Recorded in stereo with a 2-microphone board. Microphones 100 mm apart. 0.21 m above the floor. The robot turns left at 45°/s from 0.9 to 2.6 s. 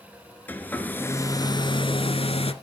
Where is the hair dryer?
160° left, 0.8 m; by 2.5 s 90° left, 0.8 m.